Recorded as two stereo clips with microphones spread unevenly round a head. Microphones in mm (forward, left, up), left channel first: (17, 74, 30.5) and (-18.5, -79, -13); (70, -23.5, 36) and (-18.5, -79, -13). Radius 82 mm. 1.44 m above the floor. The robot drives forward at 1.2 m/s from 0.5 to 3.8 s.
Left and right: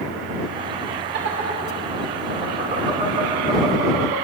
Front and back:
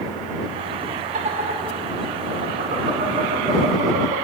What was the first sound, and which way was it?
Laughter, 135° right.